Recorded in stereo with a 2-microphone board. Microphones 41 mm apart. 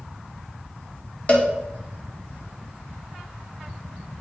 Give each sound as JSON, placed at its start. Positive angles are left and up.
{"t": 1.3, "sound": "a cowbell", "side_deg": 35, "distance_m": 1.1}